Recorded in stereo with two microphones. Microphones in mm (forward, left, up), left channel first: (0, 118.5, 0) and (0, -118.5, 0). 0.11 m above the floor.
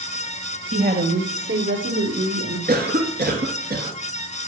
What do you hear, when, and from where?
0.7 s a woman speaking: 40° right (ahead or behind), 2.5 m; by 2.6 s 65° right (ahead or behind), 3 m
2.7 s a cough: 40° right (ahead or behind), 2 m